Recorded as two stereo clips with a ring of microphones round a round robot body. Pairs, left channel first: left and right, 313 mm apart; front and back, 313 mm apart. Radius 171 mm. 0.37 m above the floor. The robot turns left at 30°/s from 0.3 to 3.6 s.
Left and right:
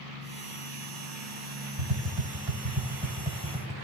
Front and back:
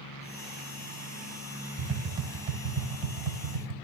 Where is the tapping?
115° right, 0.9 m; by 3.7 s 170° right, 0.9 m.